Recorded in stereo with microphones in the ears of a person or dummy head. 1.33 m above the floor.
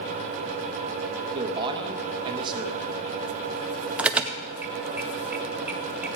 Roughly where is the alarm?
Centre.